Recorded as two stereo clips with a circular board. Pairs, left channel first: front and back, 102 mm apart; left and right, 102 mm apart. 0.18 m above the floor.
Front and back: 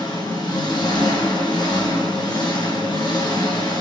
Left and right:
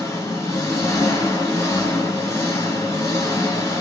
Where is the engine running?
30° left, 1.1 m.